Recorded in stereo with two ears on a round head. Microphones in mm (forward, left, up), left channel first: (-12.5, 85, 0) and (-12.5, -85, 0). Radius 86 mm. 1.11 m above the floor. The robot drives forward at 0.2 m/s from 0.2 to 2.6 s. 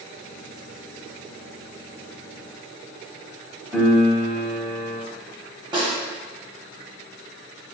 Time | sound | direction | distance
3.7 | a piano | 5° right (ahead or behind) | 0.8 m
5.7 | a snare drum | 25° right (ahead or behind) | 0.8 m